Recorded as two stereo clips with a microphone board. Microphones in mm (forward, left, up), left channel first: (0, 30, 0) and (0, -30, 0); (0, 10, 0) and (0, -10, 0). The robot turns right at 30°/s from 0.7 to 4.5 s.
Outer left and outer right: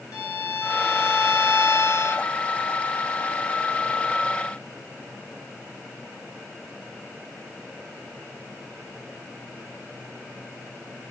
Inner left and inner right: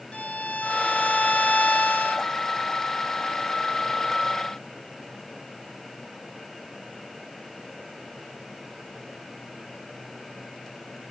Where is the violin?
75° left, 0.7 m; by 2.3 s 125° left, 0.7 m.